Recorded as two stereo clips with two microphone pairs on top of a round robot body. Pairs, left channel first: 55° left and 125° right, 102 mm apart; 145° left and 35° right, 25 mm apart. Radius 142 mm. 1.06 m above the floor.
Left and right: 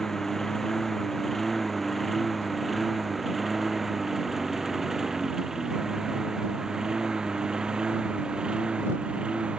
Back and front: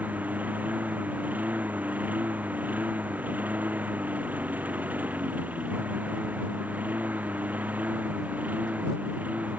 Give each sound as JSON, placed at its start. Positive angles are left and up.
{"t": 0.0, "sound": "a lawn mower", "azimuth_deg": -30}